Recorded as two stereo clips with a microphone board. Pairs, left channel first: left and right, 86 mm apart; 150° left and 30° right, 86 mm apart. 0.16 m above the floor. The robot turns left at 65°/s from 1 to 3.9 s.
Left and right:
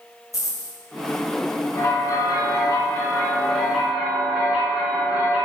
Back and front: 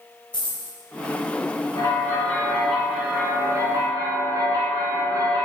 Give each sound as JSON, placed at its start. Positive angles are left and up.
{"t": 0.3, "sound": "a dropped coin", "azimuth_deg": 140, "distance_m": 1.4}
{"t": 1.8, "sound": "a bell", "azimuth_deg": 115, "distance_m": 0.8}